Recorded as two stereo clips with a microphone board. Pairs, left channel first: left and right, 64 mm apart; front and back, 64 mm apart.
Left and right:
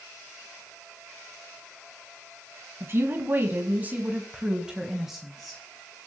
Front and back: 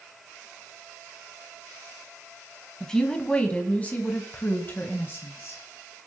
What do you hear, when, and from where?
2.8 s a woman speaking: 75° right, 2 m; by 5.6 s 5° left, 1.9 m